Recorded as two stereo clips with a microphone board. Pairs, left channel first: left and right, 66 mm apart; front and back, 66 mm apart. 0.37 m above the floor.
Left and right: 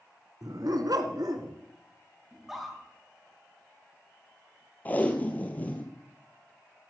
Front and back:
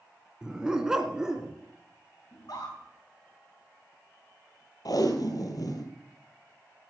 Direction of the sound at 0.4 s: 100° right.